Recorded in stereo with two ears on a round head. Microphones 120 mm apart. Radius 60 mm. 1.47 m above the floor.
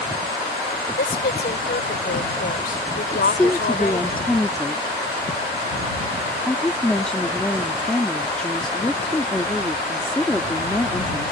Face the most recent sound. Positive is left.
turn(degrees=5)  # may be behind; listen again after turning